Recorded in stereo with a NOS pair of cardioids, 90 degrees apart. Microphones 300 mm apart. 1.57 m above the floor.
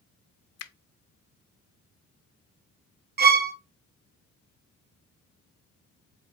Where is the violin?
35° right, 0.6 m.